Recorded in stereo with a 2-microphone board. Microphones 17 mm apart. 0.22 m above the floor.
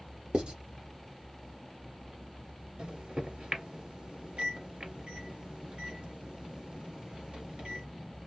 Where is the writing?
75° right (ahead or behind), 1.6 m.